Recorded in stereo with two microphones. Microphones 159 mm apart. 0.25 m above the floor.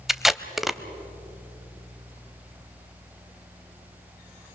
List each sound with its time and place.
0.1 s tape being pulled: centre (ahead or behind), 0.6 m